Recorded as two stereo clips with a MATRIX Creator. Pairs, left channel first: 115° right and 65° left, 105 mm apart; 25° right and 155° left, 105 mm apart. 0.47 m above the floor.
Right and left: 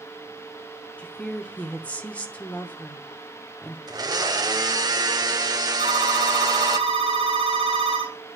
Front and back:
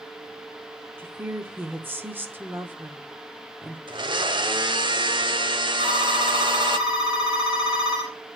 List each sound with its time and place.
1.0 s a woman speaking: 170° right, 0.7 m
3.9 s a blender: 115° left, 0.7 m
5.8 s a phone ringing: 75° left, 2 m